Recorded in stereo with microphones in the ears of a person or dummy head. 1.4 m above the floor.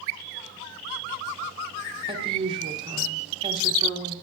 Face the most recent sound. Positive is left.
turn(degrees=-30)  # may be behind; listen again after turning